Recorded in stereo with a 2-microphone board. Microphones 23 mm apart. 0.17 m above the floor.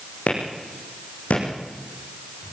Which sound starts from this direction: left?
A clap, at 0.3 s.